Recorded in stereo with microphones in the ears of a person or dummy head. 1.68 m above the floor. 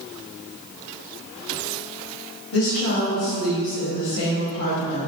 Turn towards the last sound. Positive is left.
turn(degrees=80)